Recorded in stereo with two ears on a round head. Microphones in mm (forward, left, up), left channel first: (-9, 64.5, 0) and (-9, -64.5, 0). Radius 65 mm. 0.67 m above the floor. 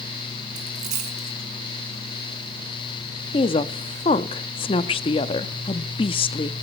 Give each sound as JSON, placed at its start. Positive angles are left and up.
{"t": 0.6, "sound": "a dropped coin", "side_deg": -55, "distance_m": 3.0}
{"t": 3.3, "sound": "a woman speaking", "side_deg": 35, "distance_m": 0.7}